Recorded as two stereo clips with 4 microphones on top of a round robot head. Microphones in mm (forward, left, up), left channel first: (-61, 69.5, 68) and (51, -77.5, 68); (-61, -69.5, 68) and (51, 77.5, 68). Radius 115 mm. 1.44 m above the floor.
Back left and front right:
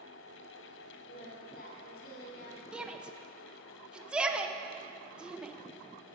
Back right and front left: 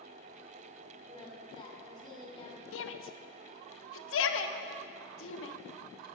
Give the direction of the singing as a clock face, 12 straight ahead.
7 o'clock.